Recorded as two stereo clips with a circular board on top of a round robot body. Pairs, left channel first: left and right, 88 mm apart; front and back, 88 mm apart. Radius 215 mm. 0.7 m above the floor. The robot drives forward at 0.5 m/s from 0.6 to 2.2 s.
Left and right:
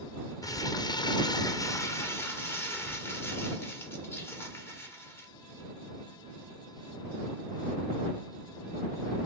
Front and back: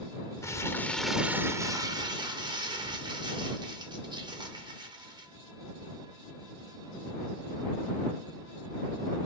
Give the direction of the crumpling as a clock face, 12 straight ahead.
10 o'clock.